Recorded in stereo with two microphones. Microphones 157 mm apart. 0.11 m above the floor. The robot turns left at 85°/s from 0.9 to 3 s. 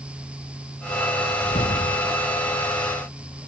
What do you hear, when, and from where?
1.4 s a whoosh: 140° left; by 2.6 s 35° left